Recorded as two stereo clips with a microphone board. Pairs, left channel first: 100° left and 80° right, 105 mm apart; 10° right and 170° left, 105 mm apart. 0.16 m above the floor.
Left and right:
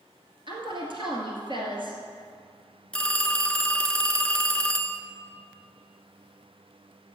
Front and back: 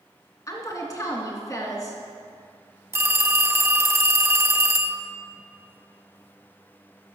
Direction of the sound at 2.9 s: 165° left.